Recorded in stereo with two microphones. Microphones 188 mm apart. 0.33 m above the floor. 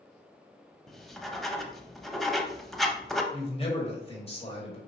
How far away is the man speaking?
About 1.4 m.